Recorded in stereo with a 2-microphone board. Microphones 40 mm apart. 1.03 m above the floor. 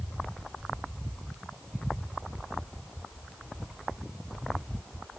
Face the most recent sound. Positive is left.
No sound to turn to.